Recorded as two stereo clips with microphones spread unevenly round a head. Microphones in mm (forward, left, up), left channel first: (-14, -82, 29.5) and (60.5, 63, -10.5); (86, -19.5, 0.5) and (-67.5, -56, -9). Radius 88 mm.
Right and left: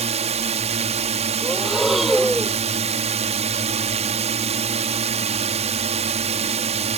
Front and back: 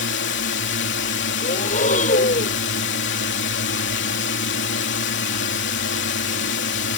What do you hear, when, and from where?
0.0 s a drone: 10° left
1.4 s breathing: 25° right